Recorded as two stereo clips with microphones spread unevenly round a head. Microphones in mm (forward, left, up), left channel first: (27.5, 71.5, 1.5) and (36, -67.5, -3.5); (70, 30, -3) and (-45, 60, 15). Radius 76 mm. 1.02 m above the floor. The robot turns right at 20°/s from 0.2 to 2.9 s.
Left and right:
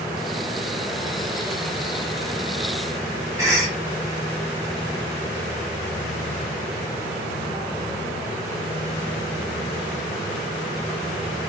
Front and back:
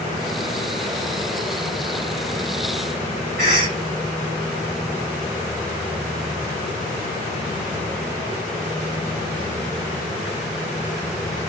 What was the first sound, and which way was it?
A cough, 160° right.